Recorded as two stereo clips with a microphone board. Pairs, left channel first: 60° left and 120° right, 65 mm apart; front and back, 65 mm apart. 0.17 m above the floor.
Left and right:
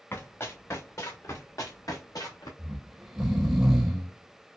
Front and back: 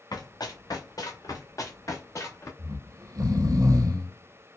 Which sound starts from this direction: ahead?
Running footsteps, at 0.1 s.